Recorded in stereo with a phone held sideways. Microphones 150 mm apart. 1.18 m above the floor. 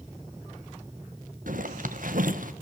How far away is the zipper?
About 1.2 m.